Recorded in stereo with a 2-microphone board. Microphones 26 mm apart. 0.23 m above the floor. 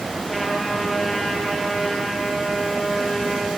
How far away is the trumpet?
About 4.5 m.